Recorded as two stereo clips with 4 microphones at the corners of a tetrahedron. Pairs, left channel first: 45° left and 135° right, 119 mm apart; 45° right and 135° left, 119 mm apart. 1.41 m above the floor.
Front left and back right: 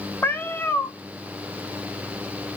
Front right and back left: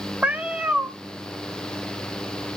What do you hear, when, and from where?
0.2 s a cat meowing: 75° left, 0.7 m